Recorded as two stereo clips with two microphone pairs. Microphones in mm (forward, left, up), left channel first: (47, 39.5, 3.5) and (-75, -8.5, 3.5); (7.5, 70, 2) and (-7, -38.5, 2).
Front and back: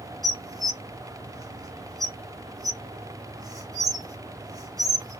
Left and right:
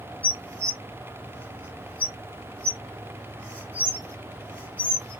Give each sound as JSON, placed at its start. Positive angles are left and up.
{"t": 0.2, "sound": "dishes clattering", "azimuth_deg": 150, "distance_m": 0.8}